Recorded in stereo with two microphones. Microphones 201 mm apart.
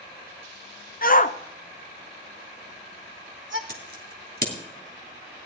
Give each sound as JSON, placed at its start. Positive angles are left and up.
{"t": 1.0, "sound": "a shout", "side_deg": 45, "distance_m": 1.0}
{"t": 3.7, "sound": "scissors", "side_deg": -45, "distance_m": 3.0}